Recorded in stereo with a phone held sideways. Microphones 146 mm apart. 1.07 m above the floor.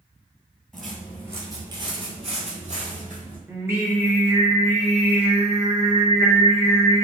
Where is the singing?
20° right (ahead or behind), 0.9 m.